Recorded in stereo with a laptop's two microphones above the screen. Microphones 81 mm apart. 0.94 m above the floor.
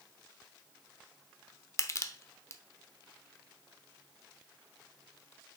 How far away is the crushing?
About 0.7 m.